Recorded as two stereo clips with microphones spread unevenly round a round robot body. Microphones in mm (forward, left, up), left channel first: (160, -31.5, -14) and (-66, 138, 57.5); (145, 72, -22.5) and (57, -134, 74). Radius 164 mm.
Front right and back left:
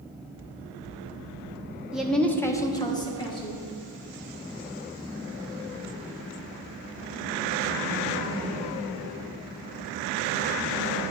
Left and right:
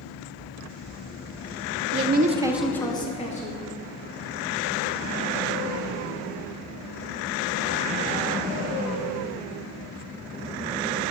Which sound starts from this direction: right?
A woman speaking, at 1.9 s.